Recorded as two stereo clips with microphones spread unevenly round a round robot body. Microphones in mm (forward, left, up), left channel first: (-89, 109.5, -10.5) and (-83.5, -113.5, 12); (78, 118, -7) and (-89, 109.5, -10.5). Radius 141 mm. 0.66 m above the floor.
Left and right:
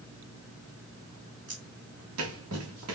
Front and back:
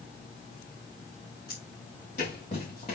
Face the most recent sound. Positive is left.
turn(degrees=-65)